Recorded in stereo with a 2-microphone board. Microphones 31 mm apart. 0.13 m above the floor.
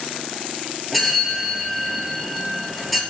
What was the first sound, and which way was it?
A bell, centre (ahead or behind).